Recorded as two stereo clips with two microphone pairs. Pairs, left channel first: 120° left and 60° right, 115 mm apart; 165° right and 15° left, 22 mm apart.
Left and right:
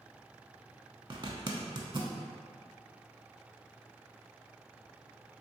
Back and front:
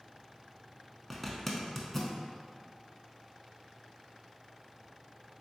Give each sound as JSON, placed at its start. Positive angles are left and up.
{"t": 1.1, "sound": "a zipper", "azimuth_deg": -90, "distance_m": 0.5}